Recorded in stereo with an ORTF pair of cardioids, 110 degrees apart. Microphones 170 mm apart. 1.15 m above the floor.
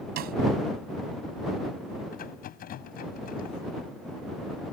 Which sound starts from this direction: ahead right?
A snare drum, at 0.2 s.